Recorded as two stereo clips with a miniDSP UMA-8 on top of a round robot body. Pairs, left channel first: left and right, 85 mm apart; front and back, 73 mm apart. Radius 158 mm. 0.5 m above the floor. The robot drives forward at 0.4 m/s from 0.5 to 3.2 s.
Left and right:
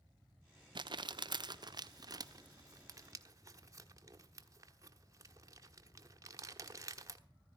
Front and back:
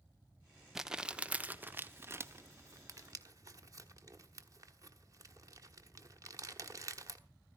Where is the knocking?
No knocking in this recording.